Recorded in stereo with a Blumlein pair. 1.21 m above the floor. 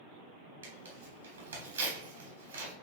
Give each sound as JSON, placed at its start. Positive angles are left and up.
{"t": 0.6, "sound": "tearing paper", "azimuth_deg": -70, "distance_m": 3.0}